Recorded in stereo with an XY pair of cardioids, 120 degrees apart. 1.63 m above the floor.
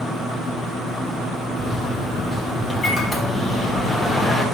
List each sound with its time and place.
1.6 s a microwave: 30° left, 3.5 m